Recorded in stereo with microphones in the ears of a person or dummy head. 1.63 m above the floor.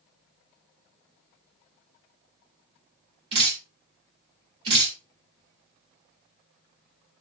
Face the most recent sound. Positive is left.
turn(degrees=-30)  # may be behind; listen again after turning